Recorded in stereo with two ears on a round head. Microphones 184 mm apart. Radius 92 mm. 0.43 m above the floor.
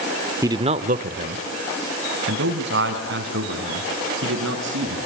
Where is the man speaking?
15° right (ahead or behind), 0.8 m; by 5.0 s 60° right (ahead or behind), 5 m.